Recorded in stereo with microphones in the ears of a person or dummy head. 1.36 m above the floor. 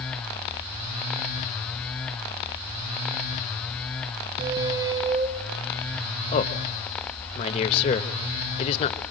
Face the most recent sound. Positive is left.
turn(degrees=50)  # may be behind; listen again after turning